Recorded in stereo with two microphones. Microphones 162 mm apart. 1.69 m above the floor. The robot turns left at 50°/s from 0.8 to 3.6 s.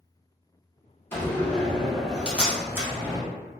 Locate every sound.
1.1 s a door slam: 15° left (ahead or behind), 0.8 m; by 3.2 s 15° right (ahead or behind), 0.8 m